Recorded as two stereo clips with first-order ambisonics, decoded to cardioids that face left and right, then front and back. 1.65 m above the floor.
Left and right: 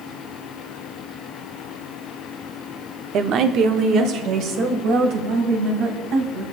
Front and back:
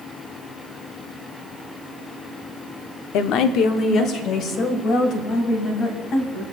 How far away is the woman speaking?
About 0.6 m.